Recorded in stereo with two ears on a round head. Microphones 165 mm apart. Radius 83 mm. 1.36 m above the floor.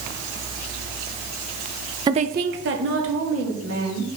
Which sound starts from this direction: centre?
A woman speaking, at 2.1 s.